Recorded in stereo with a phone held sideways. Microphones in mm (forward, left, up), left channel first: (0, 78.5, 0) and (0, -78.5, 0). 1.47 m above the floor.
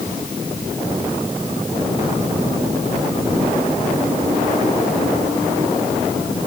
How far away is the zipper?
No zipper in this recording.